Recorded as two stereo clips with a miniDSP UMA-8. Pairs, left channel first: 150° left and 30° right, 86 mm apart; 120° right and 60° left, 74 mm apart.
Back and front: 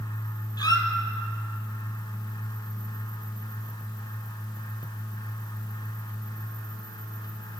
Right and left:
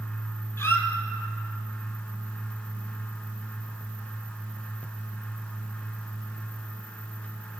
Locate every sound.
0.6 s a squeak: 175° right, 1.6 m